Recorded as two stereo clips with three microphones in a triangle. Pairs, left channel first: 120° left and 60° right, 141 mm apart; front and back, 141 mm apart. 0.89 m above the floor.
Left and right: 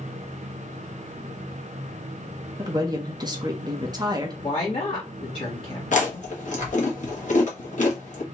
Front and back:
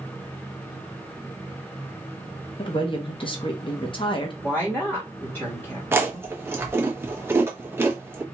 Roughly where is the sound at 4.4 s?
Left.